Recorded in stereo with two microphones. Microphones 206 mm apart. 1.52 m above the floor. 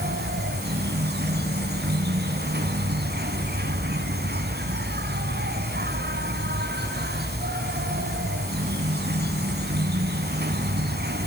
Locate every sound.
0.0 s an insect: 50° right (ahead or behind), 3 m